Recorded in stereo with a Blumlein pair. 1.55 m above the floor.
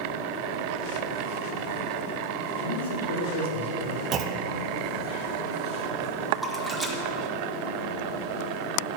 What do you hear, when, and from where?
2.6 s a man speaking: 65° left, 2.5 m
4.1 s a clunk: 30° right, 0.7 m
6.3 s a splash: 5° right, 1.6 m